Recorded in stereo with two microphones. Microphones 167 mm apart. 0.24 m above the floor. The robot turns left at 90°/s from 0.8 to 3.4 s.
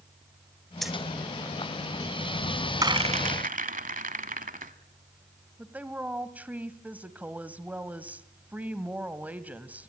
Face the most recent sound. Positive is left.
turn(degrees=-10)  # may be behind; listen again after turning